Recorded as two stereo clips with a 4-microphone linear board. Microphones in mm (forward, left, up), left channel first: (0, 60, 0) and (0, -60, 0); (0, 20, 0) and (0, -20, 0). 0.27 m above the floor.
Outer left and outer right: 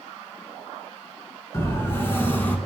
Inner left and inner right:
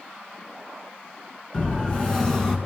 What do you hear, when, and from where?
1.5 s a siren: 20° left (ahead or behind), 5 m; by 2.6 s 15° left (ahead or behind), 3.5 m